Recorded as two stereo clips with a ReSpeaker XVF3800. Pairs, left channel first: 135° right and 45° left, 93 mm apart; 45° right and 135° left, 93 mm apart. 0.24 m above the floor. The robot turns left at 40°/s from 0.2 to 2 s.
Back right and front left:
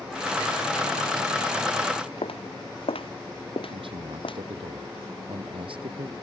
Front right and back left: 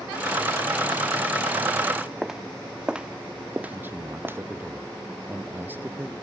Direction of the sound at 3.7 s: 65° left.